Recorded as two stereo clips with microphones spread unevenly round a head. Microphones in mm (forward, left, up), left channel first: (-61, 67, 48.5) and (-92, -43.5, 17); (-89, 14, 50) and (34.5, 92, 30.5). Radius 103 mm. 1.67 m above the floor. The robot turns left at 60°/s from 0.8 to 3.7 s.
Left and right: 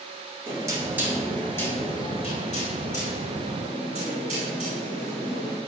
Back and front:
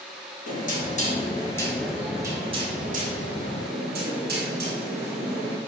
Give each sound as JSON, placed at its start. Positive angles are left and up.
{"t": 0.5, "sound": "knocking", "azimuth_deg": -170, "distance_m": 3.5}